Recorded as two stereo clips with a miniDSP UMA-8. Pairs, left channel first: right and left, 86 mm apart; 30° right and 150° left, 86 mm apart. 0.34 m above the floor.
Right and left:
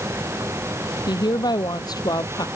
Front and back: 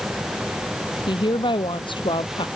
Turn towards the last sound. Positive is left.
turn(degrees=-45)